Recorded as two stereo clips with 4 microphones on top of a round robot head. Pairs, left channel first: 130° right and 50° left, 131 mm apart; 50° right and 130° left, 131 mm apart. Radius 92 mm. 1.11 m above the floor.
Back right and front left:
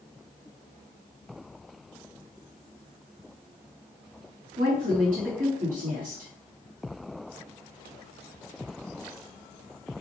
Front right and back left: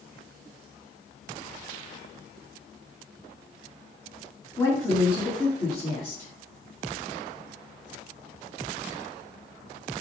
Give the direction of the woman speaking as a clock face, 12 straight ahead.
11 o'clock.